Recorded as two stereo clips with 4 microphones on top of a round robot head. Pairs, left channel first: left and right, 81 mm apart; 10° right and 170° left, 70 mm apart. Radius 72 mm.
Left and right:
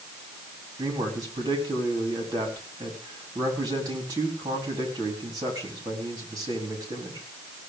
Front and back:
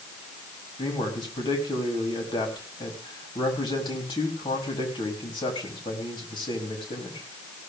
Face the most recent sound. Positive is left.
turn(degrees=-40)